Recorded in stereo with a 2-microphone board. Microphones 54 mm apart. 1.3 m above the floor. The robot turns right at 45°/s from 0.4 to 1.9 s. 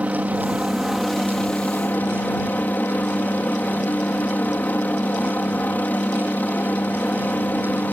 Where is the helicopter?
30° right; by 8.0 s 35° left.